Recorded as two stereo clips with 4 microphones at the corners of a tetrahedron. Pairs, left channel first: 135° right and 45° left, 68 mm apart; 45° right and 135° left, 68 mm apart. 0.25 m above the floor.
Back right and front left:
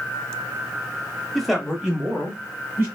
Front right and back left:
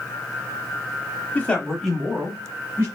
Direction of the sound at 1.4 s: 45° right.